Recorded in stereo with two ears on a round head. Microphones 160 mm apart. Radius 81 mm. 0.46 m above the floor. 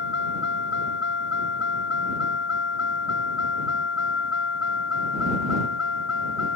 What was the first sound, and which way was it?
A vehicle, 65° left (ahead or behind).